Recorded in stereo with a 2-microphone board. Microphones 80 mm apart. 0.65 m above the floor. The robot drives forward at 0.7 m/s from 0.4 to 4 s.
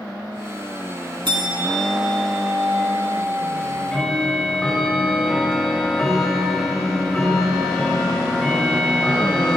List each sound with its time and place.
1.2 s a bell: 80° right, 1.6 m; by 4.0 s 35° right (ahead or behind), 2.5 m
3.6 s ticking: 10° left (ahead or behind), 2.5 m